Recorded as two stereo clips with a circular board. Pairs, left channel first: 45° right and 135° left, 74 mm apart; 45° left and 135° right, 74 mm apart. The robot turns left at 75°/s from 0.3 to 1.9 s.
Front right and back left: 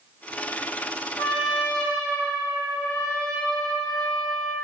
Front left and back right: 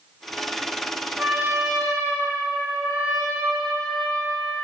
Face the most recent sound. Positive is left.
turn(degrees=-100)